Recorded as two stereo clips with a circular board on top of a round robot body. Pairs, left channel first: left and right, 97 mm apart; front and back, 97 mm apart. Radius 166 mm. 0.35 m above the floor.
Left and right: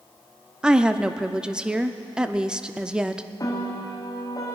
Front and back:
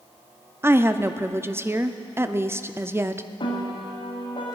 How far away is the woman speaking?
About 0.8 m.